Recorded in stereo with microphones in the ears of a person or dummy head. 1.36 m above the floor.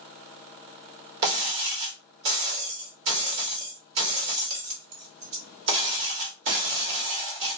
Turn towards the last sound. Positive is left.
turn(degrees=-60)  # may be behind; listen again after turning